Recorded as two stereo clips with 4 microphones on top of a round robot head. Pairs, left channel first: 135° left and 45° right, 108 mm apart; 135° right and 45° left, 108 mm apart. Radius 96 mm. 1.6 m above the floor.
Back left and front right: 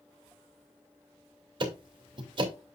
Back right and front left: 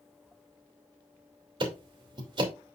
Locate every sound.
1.6 s ticking: straight ahead, 2.5 m